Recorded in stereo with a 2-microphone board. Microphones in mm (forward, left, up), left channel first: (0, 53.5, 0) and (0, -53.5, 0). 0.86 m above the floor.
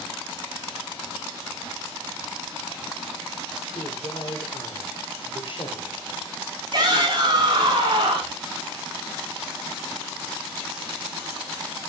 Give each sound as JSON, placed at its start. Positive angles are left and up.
{"t": 3.8, "sound": "a man speaking", "side_deg": 55, "distance_m": 2.0}
{"t": 6.7, "sound": "a shout", "side_deg": -45, "distance_m": 6.0}